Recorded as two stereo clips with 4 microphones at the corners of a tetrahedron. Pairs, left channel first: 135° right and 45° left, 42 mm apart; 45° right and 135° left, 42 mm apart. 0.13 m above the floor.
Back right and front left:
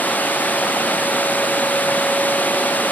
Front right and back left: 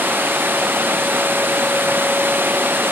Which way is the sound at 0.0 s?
175° left.